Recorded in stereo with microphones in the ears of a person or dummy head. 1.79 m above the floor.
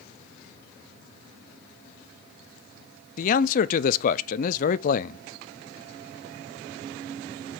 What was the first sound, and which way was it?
A man speaking, 50° left (ahead or behind).